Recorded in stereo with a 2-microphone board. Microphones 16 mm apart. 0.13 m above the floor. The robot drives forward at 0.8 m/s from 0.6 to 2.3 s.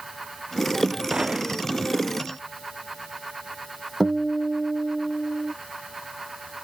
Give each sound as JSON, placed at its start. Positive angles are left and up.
{"t": 1.1, "sound": "a gunshot", "side_deg": -45}
{"t": 4.0, "sound": "a guitar", "side_deg": -10}